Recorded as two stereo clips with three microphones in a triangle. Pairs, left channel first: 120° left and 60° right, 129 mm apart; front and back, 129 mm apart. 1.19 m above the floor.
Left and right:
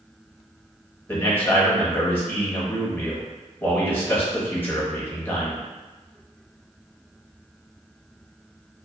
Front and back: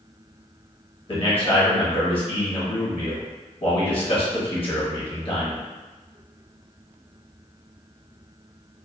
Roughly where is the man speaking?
Ahead left.